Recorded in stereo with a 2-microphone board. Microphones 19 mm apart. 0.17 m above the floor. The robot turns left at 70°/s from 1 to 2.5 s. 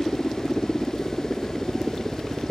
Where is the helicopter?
45° left; by 2.5 s 60° right.